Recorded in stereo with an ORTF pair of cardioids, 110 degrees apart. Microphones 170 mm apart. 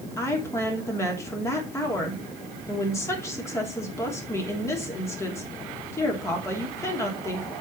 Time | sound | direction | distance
0.2 | a woman speaking | 15° left | 3 m